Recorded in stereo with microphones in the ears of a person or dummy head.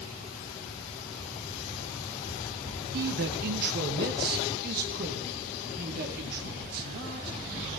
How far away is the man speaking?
About 0.9 m.